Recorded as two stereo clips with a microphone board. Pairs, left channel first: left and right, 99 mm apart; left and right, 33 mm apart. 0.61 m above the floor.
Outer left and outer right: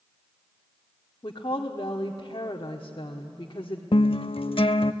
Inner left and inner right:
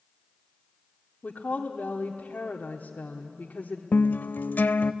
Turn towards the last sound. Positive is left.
turn(degrees=65)  # may be behind; listen again after turning